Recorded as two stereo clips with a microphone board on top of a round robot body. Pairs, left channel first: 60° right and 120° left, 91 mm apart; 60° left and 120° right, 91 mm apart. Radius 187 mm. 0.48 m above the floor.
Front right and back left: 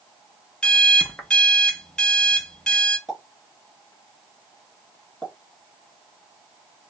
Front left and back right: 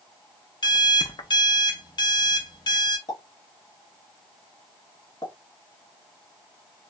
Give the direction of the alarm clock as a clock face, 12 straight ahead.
11 o'clock.